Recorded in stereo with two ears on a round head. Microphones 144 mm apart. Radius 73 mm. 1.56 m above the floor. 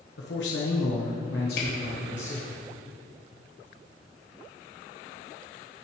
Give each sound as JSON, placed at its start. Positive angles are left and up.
{"t": 0.2, "sound": "a man speaking", "side_deg": 80, "distance_m": 1.4}
{"t": 1.6, "sound": "a camera shutter", "side_deg": 60, "distance_m": 3.5}